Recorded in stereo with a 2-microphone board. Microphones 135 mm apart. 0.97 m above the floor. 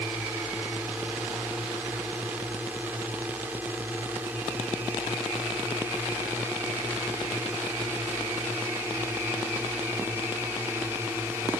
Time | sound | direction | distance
0.0 | a drone | 10° right (ahead or behind) | ?